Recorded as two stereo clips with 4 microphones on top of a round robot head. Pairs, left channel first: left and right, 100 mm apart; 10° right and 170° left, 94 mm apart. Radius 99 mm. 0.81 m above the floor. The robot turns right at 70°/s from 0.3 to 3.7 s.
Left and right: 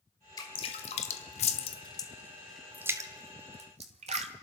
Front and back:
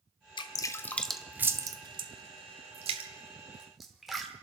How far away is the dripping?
About 0.9 m.